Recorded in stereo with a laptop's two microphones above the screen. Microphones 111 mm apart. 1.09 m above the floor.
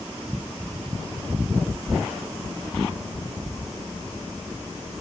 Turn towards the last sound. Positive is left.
No sound to turn to.